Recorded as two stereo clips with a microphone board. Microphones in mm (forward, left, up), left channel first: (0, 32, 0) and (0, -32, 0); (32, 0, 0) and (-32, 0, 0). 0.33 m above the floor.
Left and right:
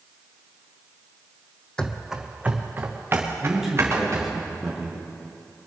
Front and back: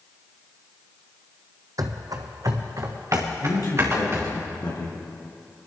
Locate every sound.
1.8 s running footsteps: 165° left, 0.9 m; by 4.3 s 135° right, 4 m
3.4 s a man speaking: 5° right, 4.5 m